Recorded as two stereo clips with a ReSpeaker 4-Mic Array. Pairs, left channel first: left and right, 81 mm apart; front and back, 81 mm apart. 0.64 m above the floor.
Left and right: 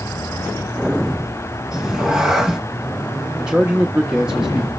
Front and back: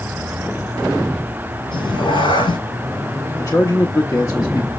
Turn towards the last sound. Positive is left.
turn(degrees=-15)